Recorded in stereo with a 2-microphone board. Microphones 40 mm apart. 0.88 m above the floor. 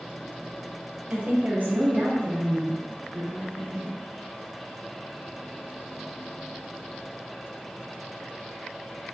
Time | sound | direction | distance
1.1 | a woman speaking | 35° right (ahead or behind) | 0.6 m